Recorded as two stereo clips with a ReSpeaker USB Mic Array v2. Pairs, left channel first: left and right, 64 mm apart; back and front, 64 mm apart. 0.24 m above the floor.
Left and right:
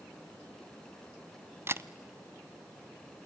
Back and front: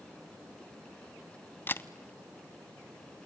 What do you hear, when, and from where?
1.7 s a camera shutter: 130° right, 0.5 m